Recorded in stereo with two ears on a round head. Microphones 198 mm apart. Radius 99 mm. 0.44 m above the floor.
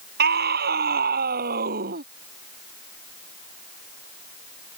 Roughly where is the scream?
Right.